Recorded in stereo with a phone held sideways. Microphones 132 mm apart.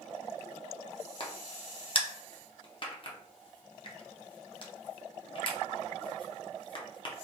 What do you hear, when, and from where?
1.2 s a crack: 40° left (ahead or behind), 0.7 m